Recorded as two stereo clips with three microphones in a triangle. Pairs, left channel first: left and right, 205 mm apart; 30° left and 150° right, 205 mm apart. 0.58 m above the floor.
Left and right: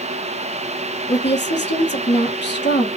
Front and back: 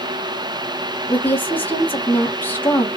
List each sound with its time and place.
1.1 s a woman speaking: 110° left, 1.6 m